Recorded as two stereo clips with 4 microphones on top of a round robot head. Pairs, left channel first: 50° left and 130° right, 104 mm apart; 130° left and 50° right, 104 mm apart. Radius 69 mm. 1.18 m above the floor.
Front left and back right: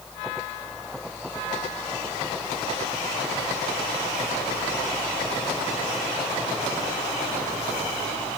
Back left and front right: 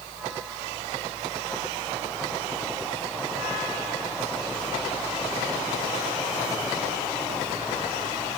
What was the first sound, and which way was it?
Only background noise.